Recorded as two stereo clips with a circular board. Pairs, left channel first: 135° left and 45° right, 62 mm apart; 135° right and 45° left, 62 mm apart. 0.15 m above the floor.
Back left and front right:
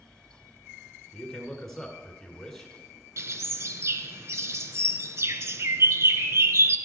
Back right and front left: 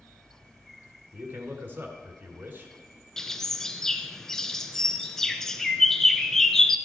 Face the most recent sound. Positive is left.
turn(degrees=-55)